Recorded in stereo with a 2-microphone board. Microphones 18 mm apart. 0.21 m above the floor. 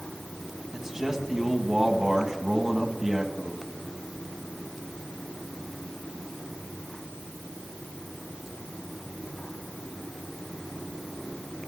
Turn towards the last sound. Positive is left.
turn(degrees=-25)  # may be behind; listen again after turning